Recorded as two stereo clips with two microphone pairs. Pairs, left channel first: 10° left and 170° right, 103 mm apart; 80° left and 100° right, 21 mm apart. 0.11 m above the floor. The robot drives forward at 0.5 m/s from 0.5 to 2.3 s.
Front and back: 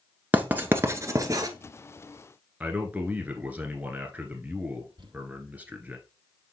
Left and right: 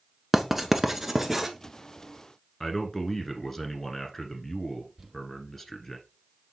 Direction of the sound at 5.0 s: 175° right.